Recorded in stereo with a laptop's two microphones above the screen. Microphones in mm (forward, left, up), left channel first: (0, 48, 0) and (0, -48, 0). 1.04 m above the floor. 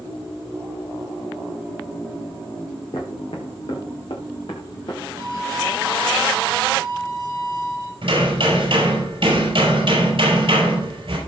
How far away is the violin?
About 3 m.